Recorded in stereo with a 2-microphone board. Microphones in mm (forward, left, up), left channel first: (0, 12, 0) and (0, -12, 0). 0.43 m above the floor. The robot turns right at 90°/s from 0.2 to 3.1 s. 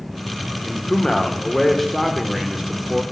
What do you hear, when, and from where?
0.7 s a man speaking: 20° left (ahead or behind), 0.8 m; by 3.0 s 20° right (ahead or behind), 0.8 m